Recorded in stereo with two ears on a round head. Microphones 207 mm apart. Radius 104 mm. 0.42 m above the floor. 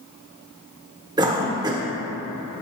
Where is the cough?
15° right (ahead or behind), 0.7 m.